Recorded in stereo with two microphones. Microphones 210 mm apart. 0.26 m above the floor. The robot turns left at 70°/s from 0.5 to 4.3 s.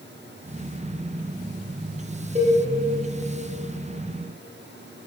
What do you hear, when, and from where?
2.4 s a cowbell: 35° right (ahead or behind), 1.4 m; by 2.6 s 20° right (ahead or behind), 1.4 m